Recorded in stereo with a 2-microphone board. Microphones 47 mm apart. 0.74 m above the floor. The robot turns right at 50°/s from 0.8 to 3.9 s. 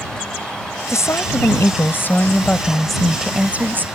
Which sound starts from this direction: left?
A woman speaking, at 0.9 s.